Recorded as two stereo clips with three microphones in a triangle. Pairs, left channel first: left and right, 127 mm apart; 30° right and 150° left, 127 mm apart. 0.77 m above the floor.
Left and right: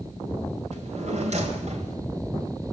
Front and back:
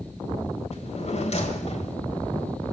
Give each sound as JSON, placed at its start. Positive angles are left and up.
{"t": 0.7, "sound": "a drawer", "azimuth_deg": -65, "distance_m": 2.5}